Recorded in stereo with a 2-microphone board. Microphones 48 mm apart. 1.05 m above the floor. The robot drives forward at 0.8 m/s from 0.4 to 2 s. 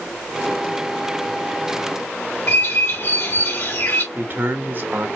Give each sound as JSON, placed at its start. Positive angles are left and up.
{"t": 2.5, "sound": "a bird", "side_deg": 70, "distance_m": 2.0}
{"t": 4.2, "sound": "a man speaking", "side_deg": -45, "distance_m": 1.3}